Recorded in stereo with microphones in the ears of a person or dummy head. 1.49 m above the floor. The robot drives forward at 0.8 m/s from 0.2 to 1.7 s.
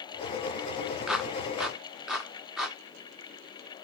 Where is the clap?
Centre (ahead or behind), 0.5 m.